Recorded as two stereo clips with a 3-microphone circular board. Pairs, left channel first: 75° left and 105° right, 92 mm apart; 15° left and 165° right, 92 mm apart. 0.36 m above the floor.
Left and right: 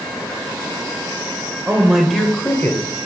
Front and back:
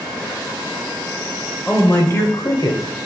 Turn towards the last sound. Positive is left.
turn(degrees=25)